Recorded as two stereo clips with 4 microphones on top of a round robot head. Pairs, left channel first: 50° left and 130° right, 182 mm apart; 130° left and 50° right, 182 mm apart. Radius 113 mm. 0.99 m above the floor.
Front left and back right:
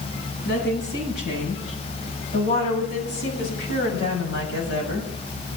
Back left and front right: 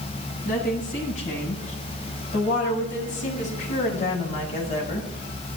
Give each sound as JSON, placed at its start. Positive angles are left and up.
{"t": 0.5, "sound": "a woman speaking", "azimuth_deg": 85, "distance_m": 10.0}